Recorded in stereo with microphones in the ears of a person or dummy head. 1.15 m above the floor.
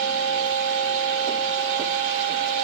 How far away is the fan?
About 1.1 m.